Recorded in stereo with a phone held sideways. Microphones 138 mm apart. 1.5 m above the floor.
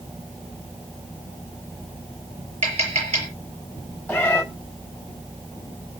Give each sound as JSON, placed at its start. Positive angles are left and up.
{"t": 2.6, "sound": "tapping", "side_deg": -50, "distance_m": 7.5}
{"t": 4.1, "sound": "a cat meowing", "side_deg": 15, "distance_m": 3.5}